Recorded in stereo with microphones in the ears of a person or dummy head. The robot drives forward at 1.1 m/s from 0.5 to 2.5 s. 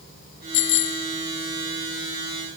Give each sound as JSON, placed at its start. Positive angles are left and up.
{"t": 0.5, "sound": "a bicycle bell", "side_deg": 60}